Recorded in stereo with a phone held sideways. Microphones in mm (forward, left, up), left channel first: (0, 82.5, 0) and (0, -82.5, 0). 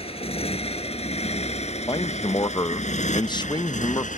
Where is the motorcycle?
35° left (ahead or behind); by 4.2 s 50° left (ahead or behind).